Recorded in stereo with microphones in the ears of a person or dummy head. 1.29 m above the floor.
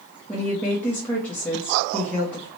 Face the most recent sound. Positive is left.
turn(degrees=5)  # may be behind; listen again after turning